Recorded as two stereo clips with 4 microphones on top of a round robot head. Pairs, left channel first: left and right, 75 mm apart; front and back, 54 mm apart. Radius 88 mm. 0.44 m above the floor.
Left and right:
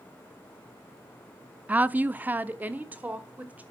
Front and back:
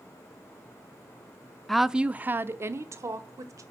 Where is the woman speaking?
75° right, 0.7 m; by 3.6 s 160° right, 1.8 m.